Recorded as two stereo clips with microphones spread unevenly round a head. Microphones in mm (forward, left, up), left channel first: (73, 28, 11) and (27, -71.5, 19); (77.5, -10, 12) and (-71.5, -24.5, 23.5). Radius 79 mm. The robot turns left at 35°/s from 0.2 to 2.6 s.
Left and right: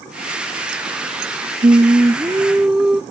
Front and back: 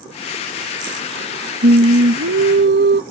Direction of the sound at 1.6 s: 165° right.